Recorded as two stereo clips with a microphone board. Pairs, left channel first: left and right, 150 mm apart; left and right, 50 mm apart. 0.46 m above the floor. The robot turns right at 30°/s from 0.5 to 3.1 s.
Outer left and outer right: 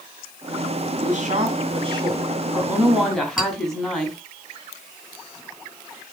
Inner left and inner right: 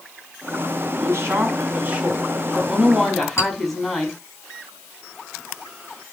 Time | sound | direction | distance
1.0 | a woman speaking | 60° right | 5 m
3.4 | a clink | 60° left (ahead or behind) | 3 m